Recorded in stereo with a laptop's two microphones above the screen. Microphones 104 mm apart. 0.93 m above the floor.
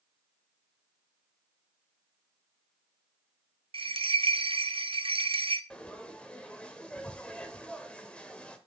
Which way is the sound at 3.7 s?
60° right (ahead or behind).